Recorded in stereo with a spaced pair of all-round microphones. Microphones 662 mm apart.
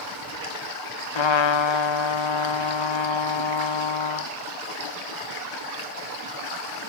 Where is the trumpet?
45° left (ahead or behind), 0.5 m.